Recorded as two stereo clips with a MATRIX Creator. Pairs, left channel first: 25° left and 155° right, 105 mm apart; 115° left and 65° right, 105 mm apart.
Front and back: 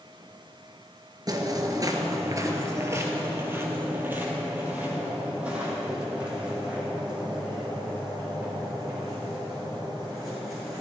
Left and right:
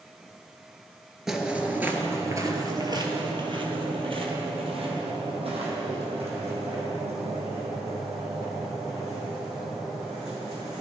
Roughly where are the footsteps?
Behind right.